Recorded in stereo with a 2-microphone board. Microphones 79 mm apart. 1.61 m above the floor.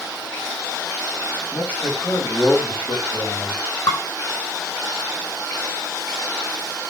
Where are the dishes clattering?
50° left (ahead or behind), 5.5 m.